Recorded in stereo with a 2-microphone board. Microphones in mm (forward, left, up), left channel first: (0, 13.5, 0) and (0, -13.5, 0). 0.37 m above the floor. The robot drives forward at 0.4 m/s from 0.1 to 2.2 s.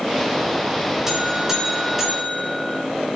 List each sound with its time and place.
1.1 s a buzzer: 15° right (ahead or behind), 3 m